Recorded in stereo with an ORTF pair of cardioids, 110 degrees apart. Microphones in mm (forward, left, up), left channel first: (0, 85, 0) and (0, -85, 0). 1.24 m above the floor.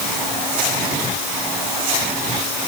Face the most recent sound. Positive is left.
No sound to turn to.